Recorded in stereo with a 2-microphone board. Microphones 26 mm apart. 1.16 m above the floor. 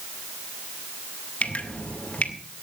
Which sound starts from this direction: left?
Dripping, at 1.4 s.